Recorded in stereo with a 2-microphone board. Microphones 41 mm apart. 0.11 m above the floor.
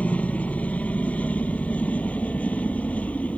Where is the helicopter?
35° left (ahead or behind).